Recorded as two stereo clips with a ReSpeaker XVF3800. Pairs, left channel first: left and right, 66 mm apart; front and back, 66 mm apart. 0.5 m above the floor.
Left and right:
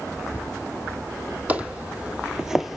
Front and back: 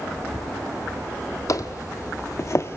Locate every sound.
1.5 s footsteps: 25° right, 1.1 m; by 2.8 s 5° right, 0.6 m